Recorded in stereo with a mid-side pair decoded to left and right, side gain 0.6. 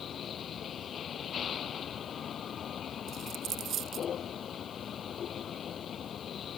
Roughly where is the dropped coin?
Ahead right.